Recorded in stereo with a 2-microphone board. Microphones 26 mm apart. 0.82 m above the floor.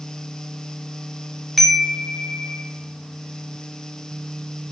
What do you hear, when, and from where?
1.6 s a chime: 5° right (ahead or behind), 0.5 m